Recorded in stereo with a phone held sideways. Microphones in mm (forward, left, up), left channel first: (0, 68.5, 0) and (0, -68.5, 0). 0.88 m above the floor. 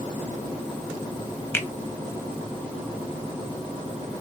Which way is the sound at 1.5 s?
15° left (ahead or behind).